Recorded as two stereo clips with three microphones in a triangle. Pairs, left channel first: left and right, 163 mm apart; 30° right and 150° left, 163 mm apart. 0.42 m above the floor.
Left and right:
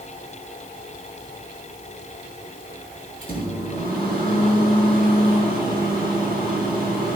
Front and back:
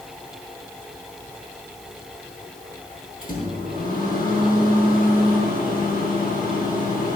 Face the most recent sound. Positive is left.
turn(degrees=-65)